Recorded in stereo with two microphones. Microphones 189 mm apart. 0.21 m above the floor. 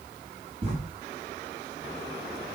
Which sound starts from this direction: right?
Writing, at 0.6 s.